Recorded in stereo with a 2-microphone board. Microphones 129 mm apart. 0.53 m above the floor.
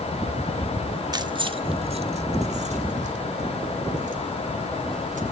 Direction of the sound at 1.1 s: 30° right (ahead or behind).